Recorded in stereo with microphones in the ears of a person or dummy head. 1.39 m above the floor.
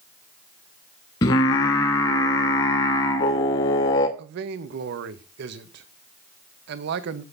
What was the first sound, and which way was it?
Singing, 20° left (ahead or behind).